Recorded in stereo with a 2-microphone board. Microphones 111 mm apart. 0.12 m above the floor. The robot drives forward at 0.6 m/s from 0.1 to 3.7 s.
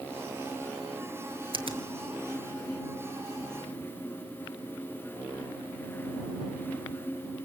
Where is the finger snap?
55° right (ahead or behind), 1.7 m.